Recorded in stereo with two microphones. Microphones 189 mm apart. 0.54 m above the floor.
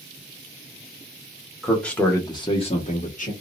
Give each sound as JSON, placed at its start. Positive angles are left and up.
{"t": 1.6, "sound": "a man speaking", "side_deg": 0, "distance_m": 1.0}